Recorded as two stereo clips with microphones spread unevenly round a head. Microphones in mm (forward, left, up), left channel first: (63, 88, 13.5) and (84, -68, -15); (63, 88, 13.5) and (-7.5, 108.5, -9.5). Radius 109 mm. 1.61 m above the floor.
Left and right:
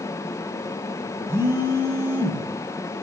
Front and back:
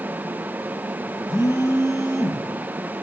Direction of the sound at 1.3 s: 5° right.